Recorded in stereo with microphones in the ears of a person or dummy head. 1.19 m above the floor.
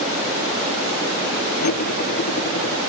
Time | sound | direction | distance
1.6 | cutlery clinking | 45° left (ahead or behind) | ?